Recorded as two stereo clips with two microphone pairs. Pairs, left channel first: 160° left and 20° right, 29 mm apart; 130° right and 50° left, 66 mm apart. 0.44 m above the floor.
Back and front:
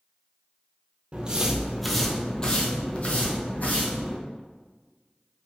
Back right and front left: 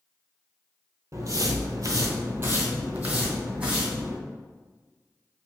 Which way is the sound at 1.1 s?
20° left.